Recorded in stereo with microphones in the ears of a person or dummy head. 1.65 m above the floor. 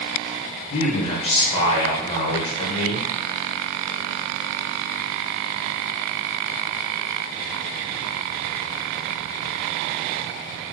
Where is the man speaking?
35° left (ahead or behind), 0.8 m.